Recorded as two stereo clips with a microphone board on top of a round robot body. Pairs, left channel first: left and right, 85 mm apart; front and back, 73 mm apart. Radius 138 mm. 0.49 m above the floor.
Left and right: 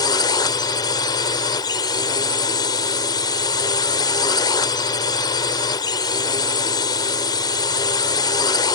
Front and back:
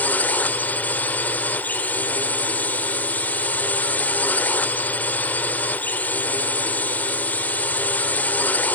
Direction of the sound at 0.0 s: 65° left.